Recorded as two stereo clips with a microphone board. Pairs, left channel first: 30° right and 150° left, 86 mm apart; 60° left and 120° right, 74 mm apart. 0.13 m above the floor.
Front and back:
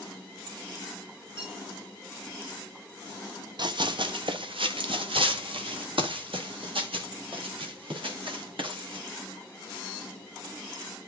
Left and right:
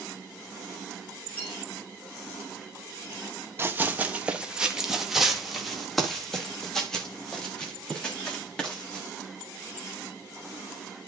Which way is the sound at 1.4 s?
125° left.